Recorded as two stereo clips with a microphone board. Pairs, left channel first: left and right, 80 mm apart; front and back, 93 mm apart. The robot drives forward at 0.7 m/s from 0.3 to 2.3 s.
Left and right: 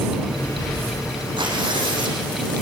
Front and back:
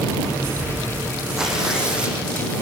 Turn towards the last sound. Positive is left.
turn(degrees=-105)